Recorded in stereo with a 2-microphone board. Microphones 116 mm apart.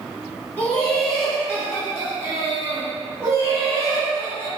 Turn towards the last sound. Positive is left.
turn(degrees=-55)  # may be behind; listen again after turning